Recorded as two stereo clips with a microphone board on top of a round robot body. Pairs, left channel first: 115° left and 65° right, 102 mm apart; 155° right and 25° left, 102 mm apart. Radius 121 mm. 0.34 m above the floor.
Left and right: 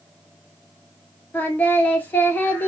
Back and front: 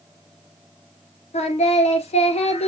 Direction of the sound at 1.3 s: 170° right.